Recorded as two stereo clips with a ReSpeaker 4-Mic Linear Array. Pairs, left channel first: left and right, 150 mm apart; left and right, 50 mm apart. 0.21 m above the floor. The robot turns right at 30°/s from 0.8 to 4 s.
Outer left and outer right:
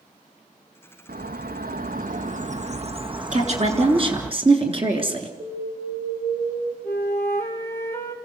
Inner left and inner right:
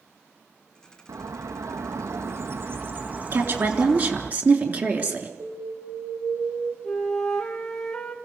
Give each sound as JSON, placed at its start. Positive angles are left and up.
{"t": 1.1, "sound": "a bird", "azimuth_deg": -95, "distance_m": 1.3}
{"t": 3.3, "sound": "a woman speaking", "side_deg": -55, "distance_m": 3.0}
{"t": 5.4, "sound": "an alarm", "side_deg": -60, "distance_m": 6.0}
{"t": 6.8, "sound": "a flute", "side_deg": 15, "distance_m": 2.5}